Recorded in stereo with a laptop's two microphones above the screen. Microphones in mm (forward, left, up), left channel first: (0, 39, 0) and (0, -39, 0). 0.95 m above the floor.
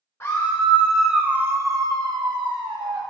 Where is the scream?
35° left (ahead or behind), 0.9 m; by 3.0 s 75° right (ahead or behind), 1.4 m.